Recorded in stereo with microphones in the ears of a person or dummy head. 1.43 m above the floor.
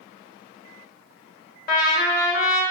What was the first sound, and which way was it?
A trumpet, 45° left (ahead or behind).